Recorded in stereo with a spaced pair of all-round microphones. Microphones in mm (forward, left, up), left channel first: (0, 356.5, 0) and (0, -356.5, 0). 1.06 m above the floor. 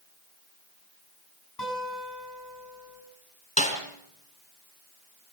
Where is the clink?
No clink in this recording.